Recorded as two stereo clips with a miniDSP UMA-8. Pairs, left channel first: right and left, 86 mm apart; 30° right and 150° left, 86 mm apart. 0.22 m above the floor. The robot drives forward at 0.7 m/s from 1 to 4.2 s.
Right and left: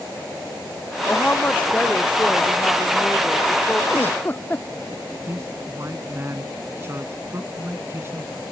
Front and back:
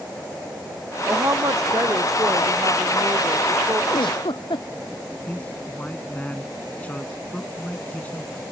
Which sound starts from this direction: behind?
A woman speaking, at 1.1 s.